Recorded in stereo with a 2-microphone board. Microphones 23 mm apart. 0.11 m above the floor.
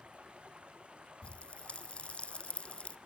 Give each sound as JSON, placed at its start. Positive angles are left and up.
{"t": 0.0, "sound": "running water", "side_deg": -50, "distance_m": 1.9}
{"t": 1.2, "sound": "a pop", "side_deg": 50, "distance_m": 0.6}